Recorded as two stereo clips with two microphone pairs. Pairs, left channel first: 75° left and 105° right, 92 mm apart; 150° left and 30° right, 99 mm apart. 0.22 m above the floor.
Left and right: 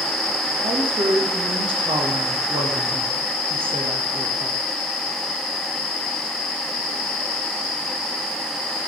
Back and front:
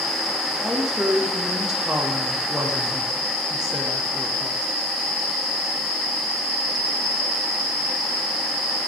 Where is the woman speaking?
115° right, 7.5 m.